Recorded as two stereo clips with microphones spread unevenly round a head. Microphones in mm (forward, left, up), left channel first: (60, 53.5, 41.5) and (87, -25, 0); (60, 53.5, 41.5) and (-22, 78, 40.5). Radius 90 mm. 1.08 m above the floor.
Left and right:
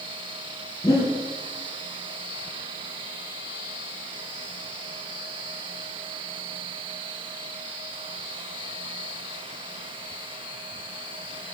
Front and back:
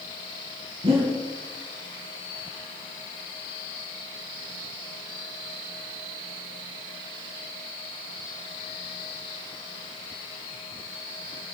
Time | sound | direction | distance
0.8 | breathing | 160° left | 4 m